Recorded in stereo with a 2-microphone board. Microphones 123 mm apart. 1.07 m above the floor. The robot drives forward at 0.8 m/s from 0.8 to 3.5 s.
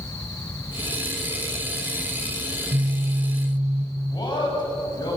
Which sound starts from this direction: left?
A man speaking, at 4.1 s.